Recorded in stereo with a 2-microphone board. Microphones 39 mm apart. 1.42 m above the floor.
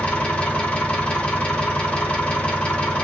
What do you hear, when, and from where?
0.0 s an engine running: 30° left (ahead or behind), 1.0 m